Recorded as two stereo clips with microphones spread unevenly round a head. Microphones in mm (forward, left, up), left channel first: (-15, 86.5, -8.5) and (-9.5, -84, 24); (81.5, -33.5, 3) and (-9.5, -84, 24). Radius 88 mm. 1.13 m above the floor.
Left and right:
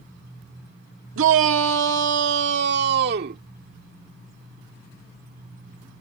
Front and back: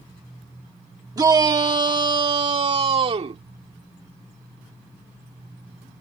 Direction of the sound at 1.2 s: 95° right.